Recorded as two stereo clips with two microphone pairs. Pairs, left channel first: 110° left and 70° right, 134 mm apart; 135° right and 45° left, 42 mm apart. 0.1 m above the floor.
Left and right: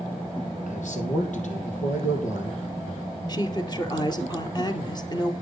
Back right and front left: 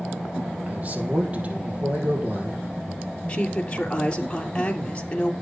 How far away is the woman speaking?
About 2 m.